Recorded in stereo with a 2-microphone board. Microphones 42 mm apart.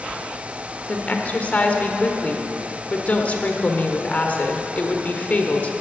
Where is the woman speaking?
35° left (ahead or behind), 1.3 m.